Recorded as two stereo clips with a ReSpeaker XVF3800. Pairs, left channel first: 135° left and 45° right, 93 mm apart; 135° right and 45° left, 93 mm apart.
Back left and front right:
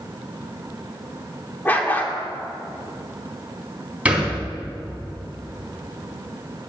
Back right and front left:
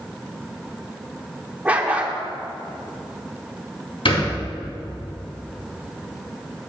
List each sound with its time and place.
1.6 s a dog barking: 95° left, 1.1 m
4.0 s a thud: 120° right, 3 m